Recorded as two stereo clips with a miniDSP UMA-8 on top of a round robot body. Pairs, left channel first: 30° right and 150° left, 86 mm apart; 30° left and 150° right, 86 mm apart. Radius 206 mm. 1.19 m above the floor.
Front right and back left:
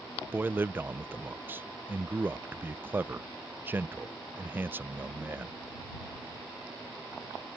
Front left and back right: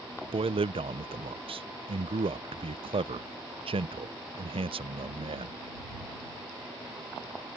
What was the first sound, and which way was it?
A man speaking, 140° right.